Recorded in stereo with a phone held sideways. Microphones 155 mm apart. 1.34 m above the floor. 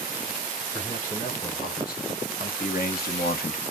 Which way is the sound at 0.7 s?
60° left (ahead or behind).